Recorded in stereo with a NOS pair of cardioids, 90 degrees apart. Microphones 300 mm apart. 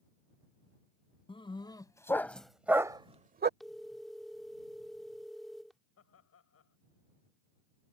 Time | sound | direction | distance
1.3 | a dog barking | 20° left | ?
3.6 | a phone ringing | straight ahead | ?
6.0 | laughter | 55° left | ?